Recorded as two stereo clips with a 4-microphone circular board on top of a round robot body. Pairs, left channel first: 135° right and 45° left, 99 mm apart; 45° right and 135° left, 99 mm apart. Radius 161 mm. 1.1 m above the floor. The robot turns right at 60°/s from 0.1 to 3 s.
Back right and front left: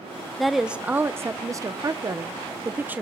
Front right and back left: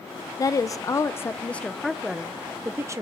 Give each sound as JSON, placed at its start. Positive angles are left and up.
{"t": 0.4, "sound": "a woman speaking", "azimuth_deg": -50, "distance_m": 0.6}